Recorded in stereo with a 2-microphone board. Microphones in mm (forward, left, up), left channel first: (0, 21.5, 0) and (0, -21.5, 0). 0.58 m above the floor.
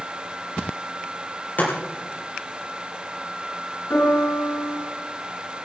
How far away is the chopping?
About 6.5 m.